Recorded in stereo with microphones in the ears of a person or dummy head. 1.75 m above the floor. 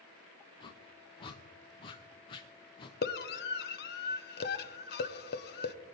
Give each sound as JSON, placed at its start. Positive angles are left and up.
{"t": 0.6, "sound": "a whoosh", "side_deg": 25, "distance_m": 1.0}
{"t": 3.0, "sound": "a scream", "side_deg": 50, "distance_m": 1.2}